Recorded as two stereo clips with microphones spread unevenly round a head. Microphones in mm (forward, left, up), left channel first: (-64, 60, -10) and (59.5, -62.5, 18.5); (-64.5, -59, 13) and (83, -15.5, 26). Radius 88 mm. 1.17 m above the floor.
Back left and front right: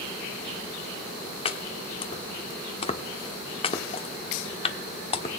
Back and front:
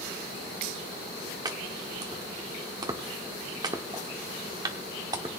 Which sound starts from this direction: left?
Chopping, at 1.4 s.